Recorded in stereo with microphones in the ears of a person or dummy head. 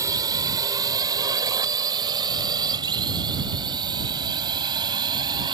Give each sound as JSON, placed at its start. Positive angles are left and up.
{"t": 0.0, "sound": "a drone", "side_deg": -15}